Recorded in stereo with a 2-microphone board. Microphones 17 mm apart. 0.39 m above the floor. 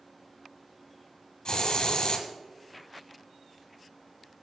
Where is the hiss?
55° left (ahead or behind), 1.8 m.